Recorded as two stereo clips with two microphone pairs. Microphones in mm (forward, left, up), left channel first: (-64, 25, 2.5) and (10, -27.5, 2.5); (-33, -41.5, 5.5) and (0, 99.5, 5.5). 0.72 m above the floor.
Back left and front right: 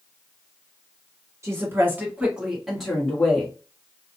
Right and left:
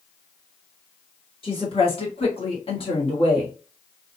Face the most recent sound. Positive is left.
turn(degrees=-145)